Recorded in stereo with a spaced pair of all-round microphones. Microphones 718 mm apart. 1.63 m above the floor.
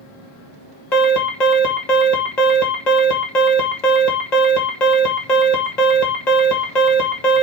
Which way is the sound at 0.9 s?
70° left (ahead or behind).